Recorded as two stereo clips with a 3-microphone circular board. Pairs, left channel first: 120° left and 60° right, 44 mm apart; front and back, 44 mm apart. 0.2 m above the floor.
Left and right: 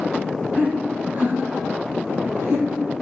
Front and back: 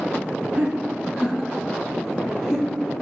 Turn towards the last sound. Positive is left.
turn(degrees=-85)